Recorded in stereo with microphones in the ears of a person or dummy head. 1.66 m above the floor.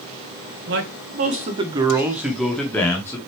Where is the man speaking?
70° right (ahead or behind), 1.8 m; by 3.2 s 10° left (ahead or behind), 2.5 m.